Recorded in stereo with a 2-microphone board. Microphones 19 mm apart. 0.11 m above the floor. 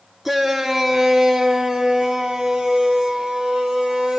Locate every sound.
0.2 s a shout: 10° right (ahead or behind), 1.8 m; by 4.2 s 40° right (ahead or behind), 4 m